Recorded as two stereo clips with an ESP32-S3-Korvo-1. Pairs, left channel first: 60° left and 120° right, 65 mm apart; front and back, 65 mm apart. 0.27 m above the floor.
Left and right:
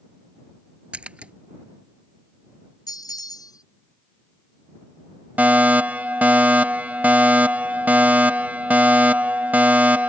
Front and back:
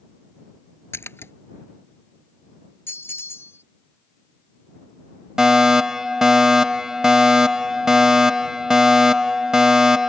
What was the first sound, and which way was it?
A splash, 50° right.